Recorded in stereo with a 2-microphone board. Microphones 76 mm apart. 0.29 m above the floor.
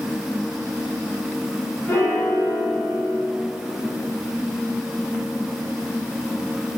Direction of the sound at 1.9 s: 40° left (ahead or behind).